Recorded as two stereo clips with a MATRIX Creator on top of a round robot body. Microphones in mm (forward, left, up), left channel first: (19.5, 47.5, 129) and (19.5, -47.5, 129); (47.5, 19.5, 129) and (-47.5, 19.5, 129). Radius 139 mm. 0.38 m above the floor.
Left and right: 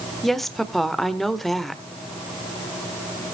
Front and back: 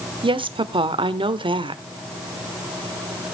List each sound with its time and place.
0.2 s a woman speaking: straight behind, 1.3 m